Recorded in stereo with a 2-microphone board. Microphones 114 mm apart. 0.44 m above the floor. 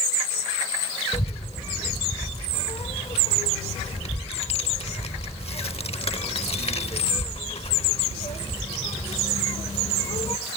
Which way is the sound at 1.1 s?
60° left (ahead or behind).